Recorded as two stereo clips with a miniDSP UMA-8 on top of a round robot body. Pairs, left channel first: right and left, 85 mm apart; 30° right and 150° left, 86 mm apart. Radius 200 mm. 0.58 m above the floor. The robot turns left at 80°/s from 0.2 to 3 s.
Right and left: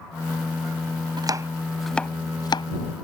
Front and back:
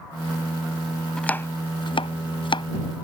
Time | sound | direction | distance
1.2 | chopping | 55° left | ?